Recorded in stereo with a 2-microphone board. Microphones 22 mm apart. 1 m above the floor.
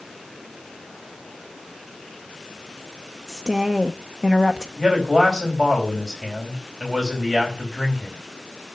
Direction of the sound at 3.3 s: 5° right (ahead or behind).